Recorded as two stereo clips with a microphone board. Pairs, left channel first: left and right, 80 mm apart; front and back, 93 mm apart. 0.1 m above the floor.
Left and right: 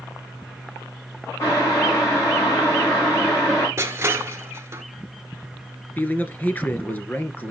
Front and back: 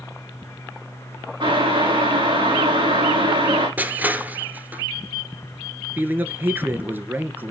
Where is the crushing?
120° right, 1.3 m.